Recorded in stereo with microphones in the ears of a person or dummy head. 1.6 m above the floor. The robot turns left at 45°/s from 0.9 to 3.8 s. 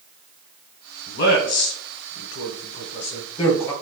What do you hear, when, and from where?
1.1 s a man speaking: 50° left (ahead or behind), 1.1 m; by 3.7 s 10° left (ahead or behind), 1.1 m